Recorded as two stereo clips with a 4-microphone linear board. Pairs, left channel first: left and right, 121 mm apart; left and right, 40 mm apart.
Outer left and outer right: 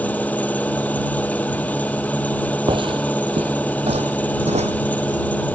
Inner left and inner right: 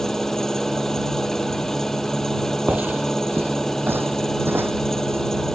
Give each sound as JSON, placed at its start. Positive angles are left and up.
{"t": 0.0, "sound": "an engine running", "side_deg": 10}
{"t": 2.7, "sound": "footsteps", "side_deg": -40}